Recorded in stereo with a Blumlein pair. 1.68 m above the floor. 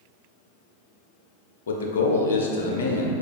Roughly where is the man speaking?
Ahead left.